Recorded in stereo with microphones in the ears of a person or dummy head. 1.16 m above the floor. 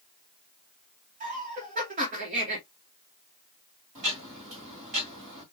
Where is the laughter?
40° right (ahead or behind), 0.9 m.